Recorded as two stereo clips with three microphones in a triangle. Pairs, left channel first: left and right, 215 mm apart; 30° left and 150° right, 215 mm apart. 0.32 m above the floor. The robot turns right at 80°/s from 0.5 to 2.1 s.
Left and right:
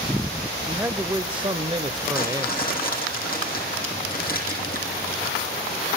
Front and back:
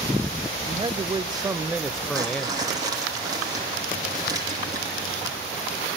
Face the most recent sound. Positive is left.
turn(degrees=135)